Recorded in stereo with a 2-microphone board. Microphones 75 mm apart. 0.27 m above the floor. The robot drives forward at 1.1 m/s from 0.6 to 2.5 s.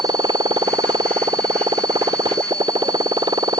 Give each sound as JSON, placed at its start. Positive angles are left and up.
{"t": 0.0, "sound": "a motorcycle", "side_deg": -85}